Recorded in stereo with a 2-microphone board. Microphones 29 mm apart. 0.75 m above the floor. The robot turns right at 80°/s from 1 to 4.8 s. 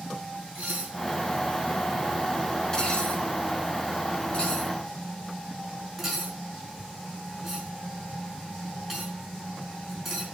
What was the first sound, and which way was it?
Dishes clattering, 60° right (ahead or behind).